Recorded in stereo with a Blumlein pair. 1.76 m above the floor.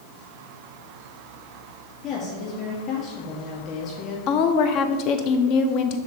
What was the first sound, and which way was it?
A woman speaking, 35° left.